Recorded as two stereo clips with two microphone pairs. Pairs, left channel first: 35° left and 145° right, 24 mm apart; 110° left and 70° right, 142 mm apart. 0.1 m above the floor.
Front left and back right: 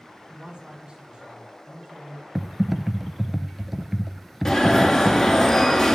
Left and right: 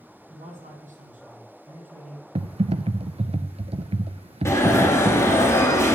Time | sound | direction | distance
0.3 | a man speaking | 90° right | 4 m
2.4 | typing on a keyboard | 70° right | 0.5 m
4.5 | an alarm | 70° left | 1.8 m